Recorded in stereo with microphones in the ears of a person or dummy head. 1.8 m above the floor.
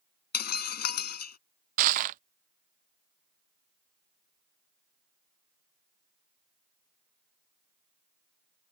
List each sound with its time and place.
0.3 s breaking glass: 50° left (ahead or behind)
1.8 s crushing: 45° right (ahead or behind)